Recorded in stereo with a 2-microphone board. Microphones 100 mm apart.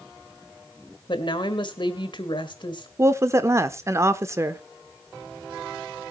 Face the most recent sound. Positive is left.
turn(degrees=-30)  # may be behind; listen again after turning